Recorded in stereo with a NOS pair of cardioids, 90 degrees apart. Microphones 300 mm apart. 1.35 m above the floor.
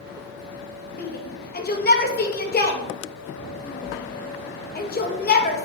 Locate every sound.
1.0 s a shout: 30° left, 1.9 m